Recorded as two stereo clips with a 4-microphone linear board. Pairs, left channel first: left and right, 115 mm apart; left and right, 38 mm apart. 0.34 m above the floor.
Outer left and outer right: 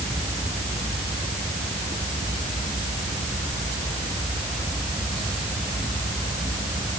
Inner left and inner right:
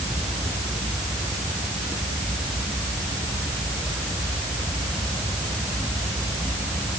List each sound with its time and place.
Only background noise.